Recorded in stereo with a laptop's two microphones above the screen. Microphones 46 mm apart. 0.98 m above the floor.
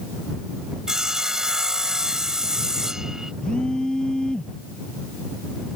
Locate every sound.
0.9 s sawing: 10° right (ahead or behind)
3.4 s a phone buzzing: 20° left (ahead or behind)